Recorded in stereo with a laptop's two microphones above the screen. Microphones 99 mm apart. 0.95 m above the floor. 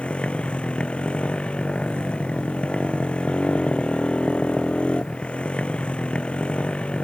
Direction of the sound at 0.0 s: 10° left (ahead or behind).